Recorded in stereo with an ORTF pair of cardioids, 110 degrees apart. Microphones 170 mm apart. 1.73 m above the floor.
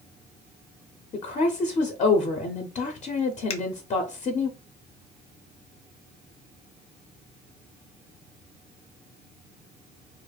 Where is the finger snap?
40° left, 0.6 m.